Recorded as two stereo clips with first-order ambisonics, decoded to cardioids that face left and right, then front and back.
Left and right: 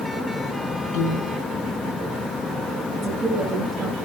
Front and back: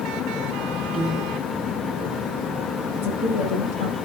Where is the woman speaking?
15° right, 9 m.